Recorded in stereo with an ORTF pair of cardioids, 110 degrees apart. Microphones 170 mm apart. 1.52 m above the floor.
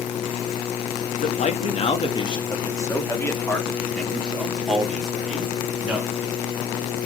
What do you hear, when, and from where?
1.2 s a man speaking: 45° left, 2.0 m; by 6.1 s 5° right, 4.5 m